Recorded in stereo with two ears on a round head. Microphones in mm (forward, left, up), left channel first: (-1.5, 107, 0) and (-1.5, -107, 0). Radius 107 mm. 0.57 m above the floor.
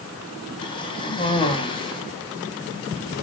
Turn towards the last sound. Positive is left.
turn(degrees=25)  # may be behind; listen again after turning